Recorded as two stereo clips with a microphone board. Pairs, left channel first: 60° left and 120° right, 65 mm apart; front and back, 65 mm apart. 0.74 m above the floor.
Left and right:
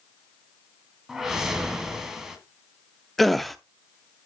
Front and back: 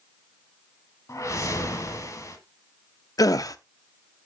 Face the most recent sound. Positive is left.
turn(degrees=-30)